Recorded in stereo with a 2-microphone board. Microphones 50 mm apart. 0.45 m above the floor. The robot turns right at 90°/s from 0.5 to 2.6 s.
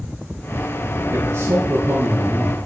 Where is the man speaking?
125° right, 6 m; by 2.6 s 5° left, 6 m.